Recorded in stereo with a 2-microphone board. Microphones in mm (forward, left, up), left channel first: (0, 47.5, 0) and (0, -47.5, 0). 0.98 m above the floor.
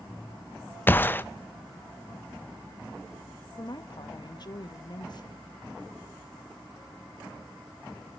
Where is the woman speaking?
50° left (ahead or behind), 1.1 m.